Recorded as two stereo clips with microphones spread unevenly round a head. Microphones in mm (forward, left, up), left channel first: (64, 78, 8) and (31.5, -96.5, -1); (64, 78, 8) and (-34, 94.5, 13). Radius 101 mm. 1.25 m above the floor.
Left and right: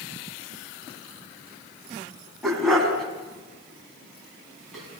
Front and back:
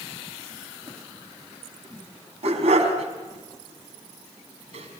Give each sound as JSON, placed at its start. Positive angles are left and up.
{"t": 2.4, "sound": "a dog barking", "azimuth_deg": 170, "distance_m": 4.5}